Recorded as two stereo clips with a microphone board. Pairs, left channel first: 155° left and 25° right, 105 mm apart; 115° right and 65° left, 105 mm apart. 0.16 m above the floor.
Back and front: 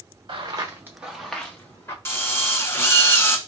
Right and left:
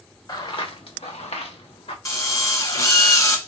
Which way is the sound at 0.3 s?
60° right.